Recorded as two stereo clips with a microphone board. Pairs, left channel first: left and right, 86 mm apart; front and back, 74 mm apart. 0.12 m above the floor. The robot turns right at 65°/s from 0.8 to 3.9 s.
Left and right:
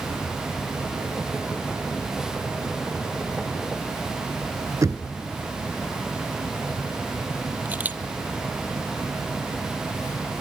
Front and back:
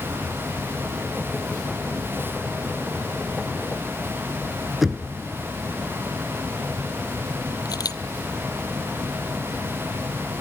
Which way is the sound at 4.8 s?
95° right.